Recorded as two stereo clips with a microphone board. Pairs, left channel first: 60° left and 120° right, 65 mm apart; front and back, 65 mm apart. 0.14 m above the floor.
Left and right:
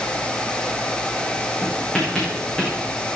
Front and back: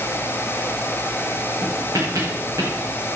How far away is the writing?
About 7.5 m.